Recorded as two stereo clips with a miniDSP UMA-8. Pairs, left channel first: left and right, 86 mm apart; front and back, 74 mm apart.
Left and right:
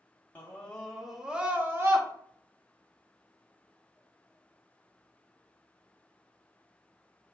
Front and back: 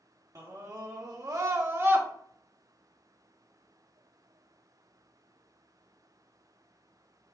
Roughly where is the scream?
Behind left.